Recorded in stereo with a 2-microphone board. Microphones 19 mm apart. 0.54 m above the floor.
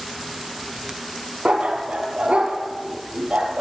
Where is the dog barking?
80° right, 3.5 m.